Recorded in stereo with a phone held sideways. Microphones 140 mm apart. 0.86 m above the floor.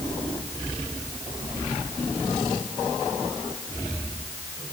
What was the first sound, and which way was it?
Only background noise.